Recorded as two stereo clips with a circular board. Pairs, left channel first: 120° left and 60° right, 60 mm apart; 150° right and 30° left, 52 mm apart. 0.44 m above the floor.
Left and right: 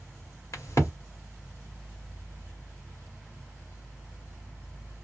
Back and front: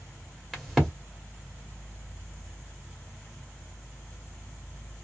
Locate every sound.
0.5 s a crack: 115° left, 1.7 m